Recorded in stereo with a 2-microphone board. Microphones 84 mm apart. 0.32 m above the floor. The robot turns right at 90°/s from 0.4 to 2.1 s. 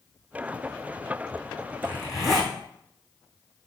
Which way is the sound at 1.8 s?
20° left (ahead or behind).